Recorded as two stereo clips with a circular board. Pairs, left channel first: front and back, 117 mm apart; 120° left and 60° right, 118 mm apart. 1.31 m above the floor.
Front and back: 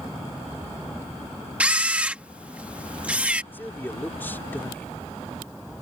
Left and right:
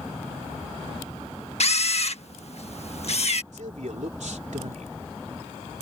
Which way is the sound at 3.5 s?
75° right.